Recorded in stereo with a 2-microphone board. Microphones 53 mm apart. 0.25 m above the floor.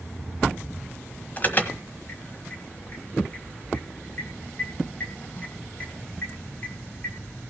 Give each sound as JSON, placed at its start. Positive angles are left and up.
{"t": 1.4, "sound": "an alarm", "side_deg": 35, "distance_m": 1.4}